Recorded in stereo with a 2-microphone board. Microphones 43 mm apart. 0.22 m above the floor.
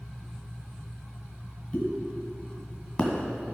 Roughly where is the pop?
Left.